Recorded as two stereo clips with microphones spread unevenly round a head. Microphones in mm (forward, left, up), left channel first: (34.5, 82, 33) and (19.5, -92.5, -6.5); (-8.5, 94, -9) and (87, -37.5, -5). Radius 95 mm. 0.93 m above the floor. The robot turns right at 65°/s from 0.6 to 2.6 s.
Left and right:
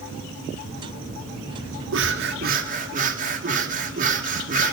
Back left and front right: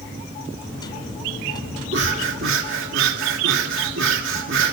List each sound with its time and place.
1.9 s breathing: 95° right, 2.5 m; by 4.7 s 50° right, 2.5 m